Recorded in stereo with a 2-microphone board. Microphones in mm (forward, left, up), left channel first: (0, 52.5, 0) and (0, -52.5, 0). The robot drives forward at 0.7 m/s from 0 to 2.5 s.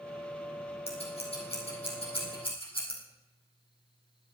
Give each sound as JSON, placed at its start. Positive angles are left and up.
{"t": 0.9, "sound": "scissors", "side_deg": 75, "distance_m": 4.5}